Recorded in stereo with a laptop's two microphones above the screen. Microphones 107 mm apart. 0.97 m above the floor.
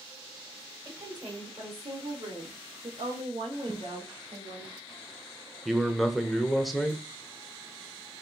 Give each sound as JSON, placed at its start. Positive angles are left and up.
{"t": 0.8, "sound": "a woman speaking", "side_deg": -40, "distance_m": 2.5}
{"t": 3.7, "sound": "a whoosh", "side_deg": -55, "distance_m": 1.0}
{"t": 5.7, "sound": "a man speaking", "side_deg": 0, "distance_m": 0.9}